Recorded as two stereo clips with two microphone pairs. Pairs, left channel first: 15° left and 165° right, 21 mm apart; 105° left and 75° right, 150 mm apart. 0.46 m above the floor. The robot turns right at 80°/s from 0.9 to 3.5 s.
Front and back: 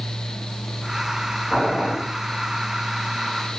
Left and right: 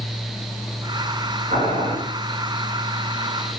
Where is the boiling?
65° right, 2.5 m; by 1.9 s 30° right, 2.5 m.